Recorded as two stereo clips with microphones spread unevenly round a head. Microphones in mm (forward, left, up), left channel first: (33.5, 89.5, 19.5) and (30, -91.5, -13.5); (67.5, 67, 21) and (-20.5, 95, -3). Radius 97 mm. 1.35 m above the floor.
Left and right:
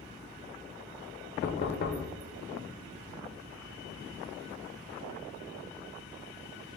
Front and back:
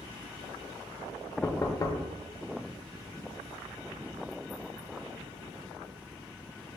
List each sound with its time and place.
1.4 s knocking: 45° left, 0.5 m